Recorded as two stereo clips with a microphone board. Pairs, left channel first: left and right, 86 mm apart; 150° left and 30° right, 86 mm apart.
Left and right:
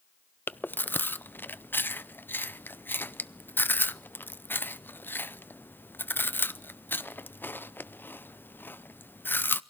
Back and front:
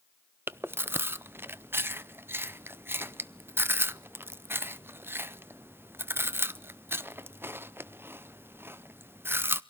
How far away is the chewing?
About 0.6 m.